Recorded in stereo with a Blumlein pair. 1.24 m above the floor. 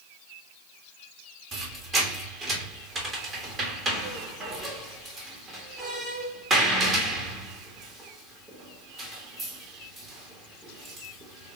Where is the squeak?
20° right, 1.3 m.